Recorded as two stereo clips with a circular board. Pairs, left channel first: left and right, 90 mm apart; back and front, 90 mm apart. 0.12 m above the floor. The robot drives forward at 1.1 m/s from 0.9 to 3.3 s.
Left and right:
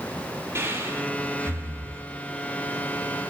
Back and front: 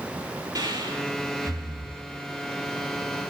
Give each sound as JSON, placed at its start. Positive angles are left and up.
{"t": 0.6, "sound": "breathing", "azimuth_deg": -35, "distance_m": 4.0}